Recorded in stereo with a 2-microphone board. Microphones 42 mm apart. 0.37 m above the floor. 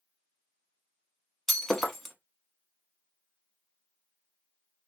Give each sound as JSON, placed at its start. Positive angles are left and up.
{"t": 1.5, "sound": "breaking glass", "side_deg": 5, "distance_m": 0.7}